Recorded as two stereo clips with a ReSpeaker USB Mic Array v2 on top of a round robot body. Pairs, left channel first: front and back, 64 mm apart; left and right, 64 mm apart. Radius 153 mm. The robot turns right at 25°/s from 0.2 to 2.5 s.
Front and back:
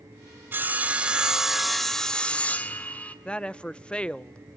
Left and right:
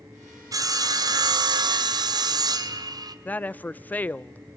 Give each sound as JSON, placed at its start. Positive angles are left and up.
{"t": 0.5, "sound": "sawing", "azimuth_deg": -120, "distance_m": 0.9}
{"t": 3.2, "sound": "a woman speaking", "azimuth_deg": 55, "distance_m": 0.5}